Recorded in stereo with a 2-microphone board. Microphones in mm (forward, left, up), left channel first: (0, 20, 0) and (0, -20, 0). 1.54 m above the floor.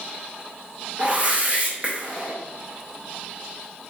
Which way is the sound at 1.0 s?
30° right (ahead or behind).